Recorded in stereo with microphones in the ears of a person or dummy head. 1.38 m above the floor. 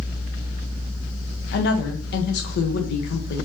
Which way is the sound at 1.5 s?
55° left (ahead or behind).